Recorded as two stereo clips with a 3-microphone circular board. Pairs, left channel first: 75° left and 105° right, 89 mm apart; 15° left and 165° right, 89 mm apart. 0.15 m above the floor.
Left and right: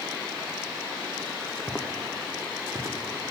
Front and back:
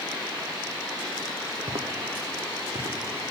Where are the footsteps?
155° left, 1.3 m; by 3.0 s 160° right, 2.5 m.